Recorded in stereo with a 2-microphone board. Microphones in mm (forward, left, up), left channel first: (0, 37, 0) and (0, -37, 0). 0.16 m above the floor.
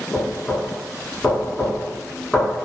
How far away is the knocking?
About 1.0 m.